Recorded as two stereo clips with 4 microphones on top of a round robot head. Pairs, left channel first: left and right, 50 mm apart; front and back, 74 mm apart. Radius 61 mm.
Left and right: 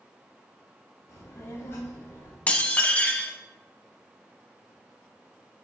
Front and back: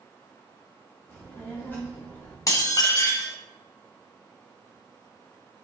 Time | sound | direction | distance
1.1 | a child speaking | 70° left | 2.5 m
2.5 | dishes clattering | 35° left | 0.8 m